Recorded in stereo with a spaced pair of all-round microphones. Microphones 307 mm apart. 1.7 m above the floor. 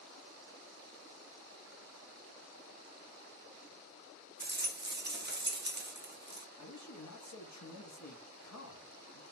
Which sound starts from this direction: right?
A rattle, at 4.4 s.